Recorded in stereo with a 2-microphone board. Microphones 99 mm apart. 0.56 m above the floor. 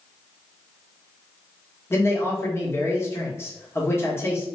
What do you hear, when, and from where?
1.9 s a man speaking: 25° left (ahead or behind), 1.4 m